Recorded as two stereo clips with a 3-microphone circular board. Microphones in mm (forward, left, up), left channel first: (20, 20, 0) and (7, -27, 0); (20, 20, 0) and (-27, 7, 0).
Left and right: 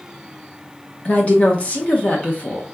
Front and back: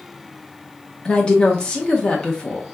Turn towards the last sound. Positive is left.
turn(degrees=65)